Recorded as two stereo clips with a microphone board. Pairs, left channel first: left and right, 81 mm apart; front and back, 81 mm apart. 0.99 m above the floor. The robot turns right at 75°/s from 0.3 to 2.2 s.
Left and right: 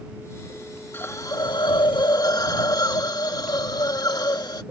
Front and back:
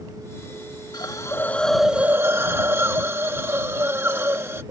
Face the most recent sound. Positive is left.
turn(degrees=120)